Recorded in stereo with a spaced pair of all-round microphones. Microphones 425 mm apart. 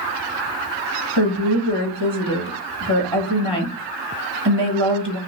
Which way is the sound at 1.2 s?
65° right (ahead or behind).